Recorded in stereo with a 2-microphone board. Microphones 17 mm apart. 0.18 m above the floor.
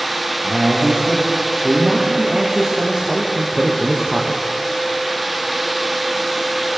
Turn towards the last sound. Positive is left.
turn(degrees=-40)  # may be behind; listen again after turning